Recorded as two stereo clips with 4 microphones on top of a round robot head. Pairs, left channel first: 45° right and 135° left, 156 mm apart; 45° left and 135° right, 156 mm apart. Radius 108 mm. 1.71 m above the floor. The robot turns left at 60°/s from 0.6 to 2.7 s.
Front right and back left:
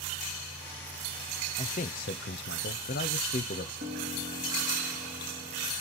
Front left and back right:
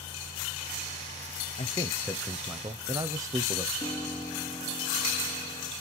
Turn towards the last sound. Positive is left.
turn(degrees=120)